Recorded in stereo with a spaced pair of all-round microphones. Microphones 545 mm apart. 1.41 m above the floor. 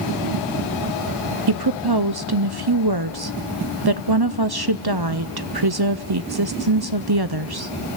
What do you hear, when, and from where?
1.5 s a woman speaking: 45° right (ahead or behind), 0.5 m